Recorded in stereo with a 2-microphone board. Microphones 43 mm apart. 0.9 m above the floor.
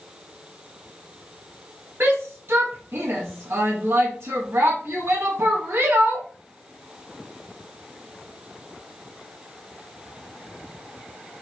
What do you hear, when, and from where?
2.0 s a shout: 65° right (ahead or behind), 1.0 m